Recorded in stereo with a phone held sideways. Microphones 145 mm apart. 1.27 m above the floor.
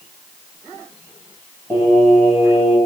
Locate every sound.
1.7 s singing: 10° left (ahead or behind), 3 m